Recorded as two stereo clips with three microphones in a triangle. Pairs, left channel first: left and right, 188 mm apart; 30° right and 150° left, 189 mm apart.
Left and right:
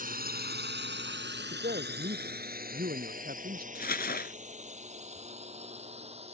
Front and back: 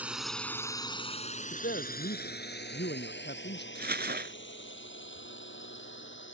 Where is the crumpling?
120° left.